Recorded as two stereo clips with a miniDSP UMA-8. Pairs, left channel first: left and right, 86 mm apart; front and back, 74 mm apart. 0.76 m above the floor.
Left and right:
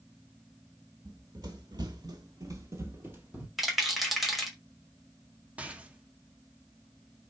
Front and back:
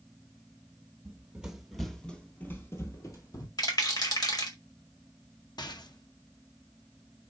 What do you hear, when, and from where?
1.1 s running footsteps: 115° right, 1.3 m; by 3.5 s 25° right, 1.4 m
3.6 s a rattle: straight ahead, 1.8 m
5.6 s a rattle: 15° right, 0.7 m